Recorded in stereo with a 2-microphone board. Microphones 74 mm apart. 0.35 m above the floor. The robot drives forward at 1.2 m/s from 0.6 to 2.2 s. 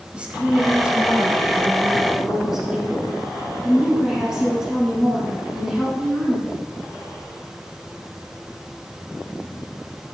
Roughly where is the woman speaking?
Centre.